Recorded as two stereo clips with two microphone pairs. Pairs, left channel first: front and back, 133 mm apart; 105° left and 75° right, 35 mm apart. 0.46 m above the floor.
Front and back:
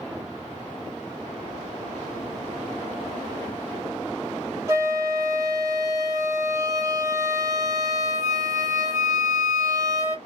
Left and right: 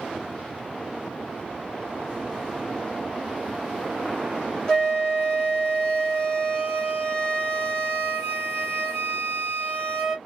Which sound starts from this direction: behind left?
A flute, at 4.7 s.